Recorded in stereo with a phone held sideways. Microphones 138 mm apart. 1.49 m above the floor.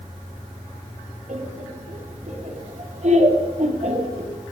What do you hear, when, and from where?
1.3 s laughter: 60° right (ahead or behind), 5 m; by 4.3 s 55° right (ahead or behind), 3.5 m